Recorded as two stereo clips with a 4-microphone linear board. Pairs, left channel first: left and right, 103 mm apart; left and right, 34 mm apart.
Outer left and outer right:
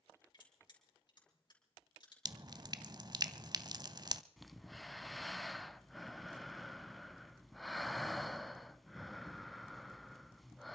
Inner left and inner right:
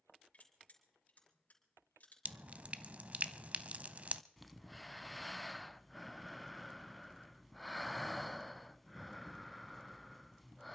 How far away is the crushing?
About 4.5 m.